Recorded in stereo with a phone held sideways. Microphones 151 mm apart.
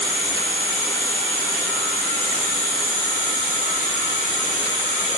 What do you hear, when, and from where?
0.0 s an insect: 50° left (ahead or behind), 1.4 m